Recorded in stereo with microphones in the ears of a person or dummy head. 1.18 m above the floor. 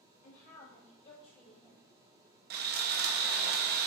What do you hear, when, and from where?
0.2 s a woman speaking: 45° left (ahead or behind), 3 m; by 2.4 s 10° left (ahead or behind), 1.5 m
2.5 s sawing: 40° right (ahead or behind), 0.7 m